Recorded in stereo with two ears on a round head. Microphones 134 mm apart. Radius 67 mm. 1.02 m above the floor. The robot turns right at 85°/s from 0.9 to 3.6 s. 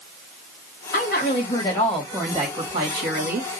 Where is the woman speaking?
85° left, 1.9 m; by 3.6 s 45° right, 1.9 m.